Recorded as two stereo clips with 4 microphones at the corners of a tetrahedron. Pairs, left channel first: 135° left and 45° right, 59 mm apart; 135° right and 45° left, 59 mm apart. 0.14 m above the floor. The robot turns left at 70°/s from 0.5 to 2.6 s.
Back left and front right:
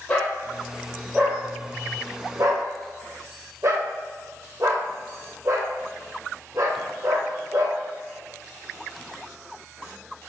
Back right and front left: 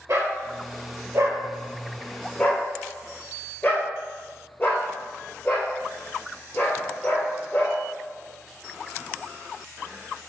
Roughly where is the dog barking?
Ahead left.